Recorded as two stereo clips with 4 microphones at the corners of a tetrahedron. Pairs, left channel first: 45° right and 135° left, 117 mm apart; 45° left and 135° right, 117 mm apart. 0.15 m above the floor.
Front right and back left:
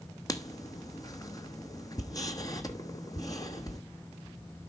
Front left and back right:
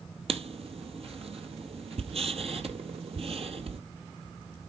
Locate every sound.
0.3 s writing: 105° right, 0.9 m